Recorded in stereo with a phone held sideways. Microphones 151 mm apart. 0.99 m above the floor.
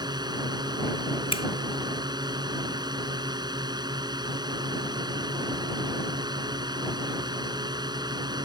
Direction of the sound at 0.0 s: 25° right (ahead or behind).